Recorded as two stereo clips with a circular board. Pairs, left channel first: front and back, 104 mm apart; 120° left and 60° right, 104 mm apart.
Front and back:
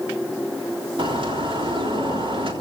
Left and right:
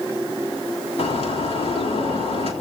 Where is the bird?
140° left, 3.5 m.